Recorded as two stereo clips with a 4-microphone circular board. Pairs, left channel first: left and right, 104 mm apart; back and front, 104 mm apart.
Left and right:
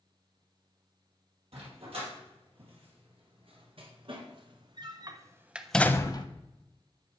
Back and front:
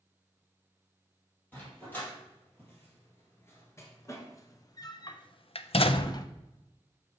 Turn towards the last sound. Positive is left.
turn(degrees=130)